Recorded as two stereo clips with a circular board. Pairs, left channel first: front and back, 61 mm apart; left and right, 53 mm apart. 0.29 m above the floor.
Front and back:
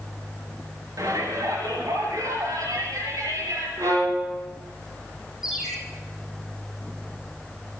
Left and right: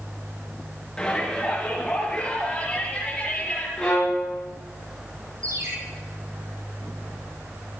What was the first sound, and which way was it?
A shout, 165° left.